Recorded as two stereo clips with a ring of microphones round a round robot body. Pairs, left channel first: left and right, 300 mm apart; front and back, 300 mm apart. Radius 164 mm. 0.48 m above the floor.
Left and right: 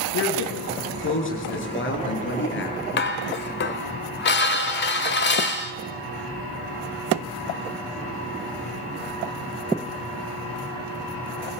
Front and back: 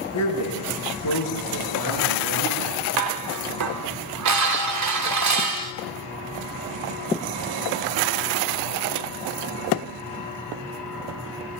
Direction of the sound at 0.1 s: 45° left.